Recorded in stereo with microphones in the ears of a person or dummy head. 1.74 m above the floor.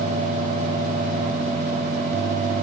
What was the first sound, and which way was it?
Only background noise.